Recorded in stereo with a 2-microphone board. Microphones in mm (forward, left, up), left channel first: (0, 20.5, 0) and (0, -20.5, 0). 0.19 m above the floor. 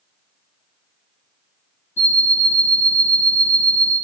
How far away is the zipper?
I don't hear a zipper.